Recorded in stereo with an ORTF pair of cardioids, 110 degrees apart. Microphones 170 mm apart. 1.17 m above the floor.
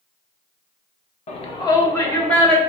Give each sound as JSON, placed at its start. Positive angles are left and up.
{"t": 1.3, "sound": "a shout", "azimuth_deg": 40, "distance_m": 0.7}